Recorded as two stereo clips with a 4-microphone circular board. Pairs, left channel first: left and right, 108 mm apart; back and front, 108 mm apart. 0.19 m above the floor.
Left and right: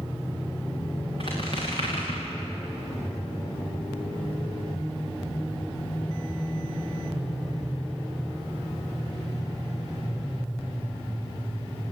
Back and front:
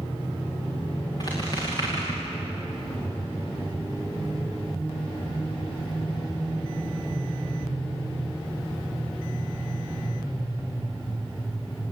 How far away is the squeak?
About 8 m.